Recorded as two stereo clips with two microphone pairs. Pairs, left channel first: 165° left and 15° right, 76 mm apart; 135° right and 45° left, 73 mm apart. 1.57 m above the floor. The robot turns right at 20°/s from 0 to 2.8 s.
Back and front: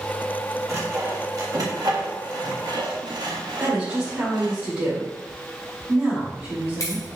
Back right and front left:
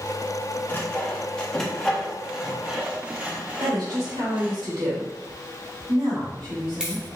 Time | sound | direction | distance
0.7 | sawing | 70° right | 1.5 m
3.6 | a woman speaking | 50° left | 3.5 m
6.2 | keys jangling | 125° left | 2 m